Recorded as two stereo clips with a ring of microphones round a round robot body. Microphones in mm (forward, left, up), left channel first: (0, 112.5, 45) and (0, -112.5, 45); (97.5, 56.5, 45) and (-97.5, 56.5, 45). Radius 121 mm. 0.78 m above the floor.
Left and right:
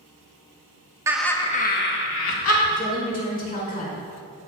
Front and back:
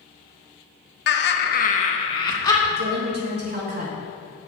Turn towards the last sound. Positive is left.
turn(degrees=145)